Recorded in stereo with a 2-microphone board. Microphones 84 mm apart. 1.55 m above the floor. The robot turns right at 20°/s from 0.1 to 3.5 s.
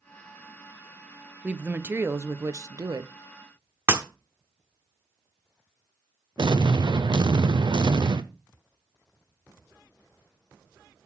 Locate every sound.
1.4 s a woman speaking: 165° right, 0.7 m; by 3.1 s 130° right, 0.7 m
3.9 s breaking glass: 30° right (ahead or behind), 1.3 m
6.4 s an explosion: 65° right (ahead or behind), 0.6 m